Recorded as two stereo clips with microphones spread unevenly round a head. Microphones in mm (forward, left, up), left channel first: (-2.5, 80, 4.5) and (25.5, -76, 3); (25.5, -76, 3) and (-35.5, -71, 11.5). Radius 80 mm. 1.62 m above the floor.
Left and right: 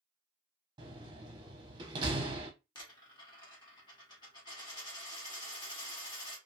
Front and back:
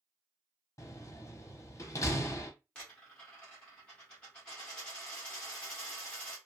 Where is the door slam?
25° right, 0.7 m.